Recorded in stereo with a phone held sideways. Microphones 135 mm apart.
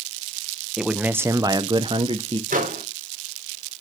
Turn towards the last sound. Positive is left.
turn(degrees=-85)